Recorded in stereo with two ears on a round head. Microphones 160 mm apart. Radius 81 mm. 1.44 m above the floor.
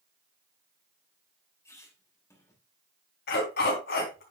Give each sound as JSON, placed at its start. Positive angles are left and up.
{"t": 1.6, "sound": "a squeak", "side_deg": 15, "distance_m": 3.0}
{"t": 3.3, "sound": "a dog barking", "side_deg": 65, "distance_m": 3.5}